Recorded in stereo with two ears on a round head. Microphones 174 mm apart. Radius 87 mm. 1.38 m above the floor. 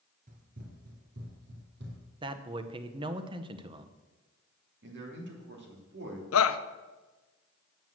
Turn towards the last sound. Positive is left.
turn(degrees=75)  # may be behind; listen again after turning